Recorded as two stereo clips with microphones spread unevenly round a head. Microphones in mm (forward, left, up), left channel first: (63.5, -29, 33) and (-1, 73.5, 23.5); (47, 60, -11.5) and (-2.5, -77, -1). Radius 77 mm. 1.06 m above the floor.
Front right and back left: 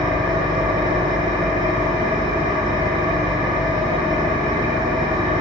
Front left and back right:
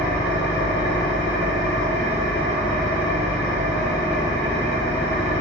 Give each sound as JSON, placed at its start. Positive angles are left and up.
{"t": 0.0, "sound": "an engine running", "azimuth_deg": 75, "distance_m": 0.9}